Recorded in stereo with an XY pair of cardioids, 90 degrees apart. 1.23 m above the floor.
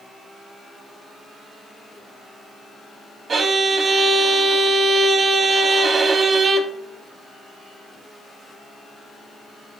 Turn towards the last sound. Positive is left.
turn(degrees=-50)